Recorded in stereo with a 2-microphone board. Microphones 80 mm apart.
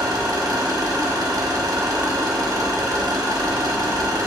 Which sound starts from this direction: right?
An engine running, at 0.0 s.